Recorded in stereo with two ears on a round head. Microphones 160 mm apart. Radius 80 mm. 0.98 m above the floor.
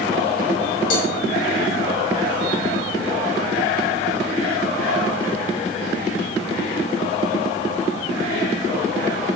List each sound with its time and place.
0.9 s a cowbell: 55° left (ahead or behind), 5.5 m